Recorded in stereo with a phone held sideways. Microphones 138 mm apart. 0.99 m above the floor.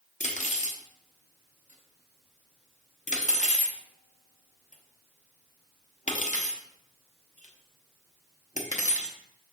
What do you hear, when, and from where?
0.2 s cutlery clinking: 60° left (ahead or behind), 0.6 m